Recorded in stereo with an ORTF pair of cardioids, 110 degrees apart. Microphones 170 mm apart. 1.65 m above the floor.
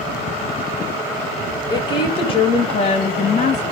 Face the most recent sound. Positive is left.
turn(degrees=45)